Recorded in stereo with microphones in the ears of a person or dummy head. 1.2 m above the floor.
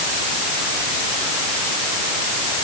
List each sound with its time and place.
Only background noise.